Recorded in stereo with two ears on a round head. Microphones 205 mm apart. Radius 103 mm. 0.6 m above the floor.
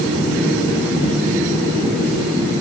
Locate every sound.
Only background noise.